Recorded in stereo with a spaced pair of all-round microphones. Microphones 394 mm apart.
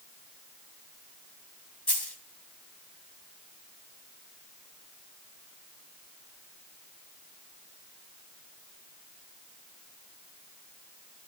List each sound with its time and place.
1.9 s a dropped coin: 75° left (ahead or behind), 3 m